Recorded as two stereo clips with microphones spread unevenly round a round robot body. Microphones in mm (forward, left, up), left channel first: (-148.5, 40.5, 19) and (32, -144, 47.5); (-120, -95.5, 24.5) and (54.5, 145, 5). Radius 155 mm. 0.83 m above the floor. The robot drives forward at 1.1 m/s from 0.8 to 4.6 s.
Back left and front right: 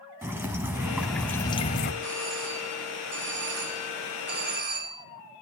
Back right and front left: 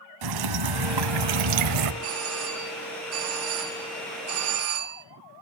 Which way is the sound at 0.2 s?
35° left.